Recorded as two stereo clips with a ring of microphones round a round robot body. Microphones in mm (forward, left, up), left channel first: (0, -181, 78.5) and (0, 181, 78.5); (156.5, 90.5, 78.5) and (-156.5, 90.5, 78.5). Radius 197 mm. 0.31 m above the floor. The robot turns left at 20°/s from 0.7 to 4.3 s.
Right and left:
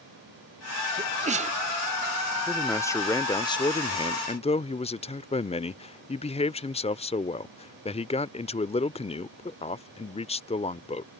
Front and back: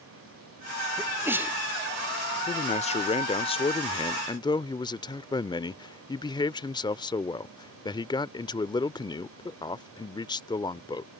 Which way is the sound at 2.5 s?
15° right.